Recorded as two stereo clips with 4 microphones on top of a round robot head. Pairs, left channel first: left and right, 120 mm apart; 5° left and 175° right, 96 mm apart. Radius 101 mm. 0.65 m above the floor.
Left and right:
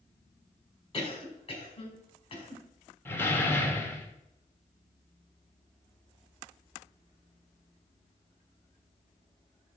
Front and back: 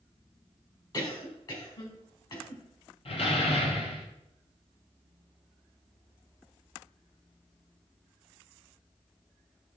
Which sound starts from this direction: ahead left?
A cough, at 0.9 s.